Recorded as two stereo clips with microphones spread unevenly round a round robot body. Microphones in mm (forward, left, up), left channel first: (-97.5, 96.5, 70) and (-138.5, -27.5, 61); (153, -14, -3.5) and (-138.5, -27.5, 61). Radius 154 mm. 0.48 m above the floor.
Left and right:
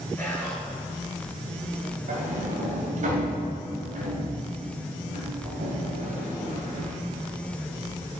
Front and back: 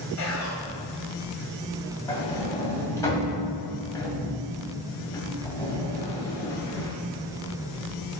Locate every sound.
0.2 s whispering: 10° right, 2.5 m
2.1 s a sliding door: 75° right, 2.5 m